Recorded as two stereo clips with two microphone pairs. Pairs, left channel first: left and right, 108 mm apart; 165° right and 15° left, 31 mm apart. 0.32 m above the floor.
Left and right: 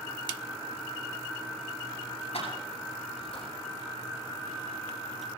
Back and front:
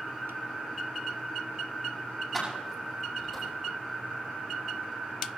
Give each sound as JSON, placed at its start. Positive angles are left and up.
{"t": 2.3, "sound": "keys jangling", "azimuth_deg": 110, "distance_m": 9.0}